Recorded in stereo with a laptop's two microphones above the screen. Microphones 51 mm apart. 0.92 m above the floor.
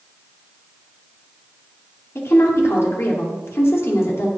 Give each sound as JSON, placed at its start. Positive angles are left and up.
{"t": 2.1, "sound": "a woman speaking", "side_deg": 65, "distance_m": 2.5}